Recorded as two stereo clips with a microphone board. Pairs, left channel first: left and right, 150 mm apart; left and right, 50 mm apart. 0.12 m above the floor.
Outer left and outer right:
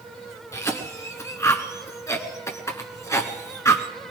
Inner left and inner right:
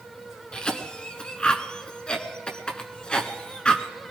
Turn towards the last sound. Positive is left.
turn(degrees=20)  # may be behind; listen again after turning